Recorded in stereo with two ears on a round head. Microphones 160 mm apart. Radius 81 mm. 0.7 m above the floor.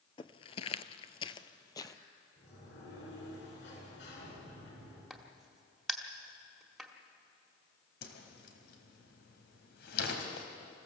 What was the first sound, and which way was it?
Footsteps, 30° left (ahead or behind).